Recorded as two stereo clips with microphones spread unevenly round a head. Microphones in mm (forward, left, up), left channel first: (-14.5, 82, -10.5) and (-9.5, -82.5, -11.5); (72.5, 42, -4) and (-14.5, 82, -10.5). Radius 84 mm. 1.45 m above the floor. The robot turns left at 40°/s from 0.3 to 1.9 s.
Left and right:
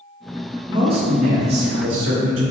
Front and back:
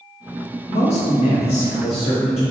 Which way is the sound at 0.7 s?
20° right.